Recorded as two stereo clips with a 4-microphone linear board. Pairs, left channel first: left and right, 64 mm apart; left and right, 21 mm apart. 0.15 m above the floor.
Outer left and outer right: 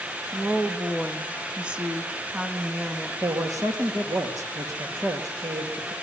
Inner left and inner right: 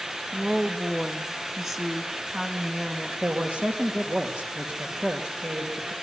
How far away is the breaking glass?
I don't hear breaking glass.